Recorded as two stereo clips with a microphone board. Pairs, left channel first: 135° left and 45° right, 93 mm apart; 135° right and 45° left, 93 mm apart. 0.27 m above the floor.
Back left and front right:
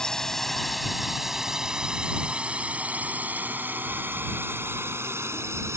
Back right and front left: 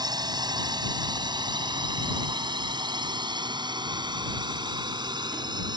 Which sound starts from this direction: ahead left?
A drone, at 0.0 s.